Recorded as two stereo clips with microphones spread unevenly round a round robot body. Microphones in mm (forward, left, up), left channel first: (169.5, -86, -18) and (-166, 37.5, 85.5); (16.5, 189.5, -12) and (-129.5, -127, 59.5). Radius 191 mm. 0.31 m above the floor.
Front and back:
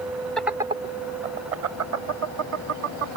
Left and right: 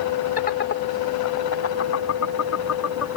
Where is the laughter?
40° left; by 3.2 s 110° left.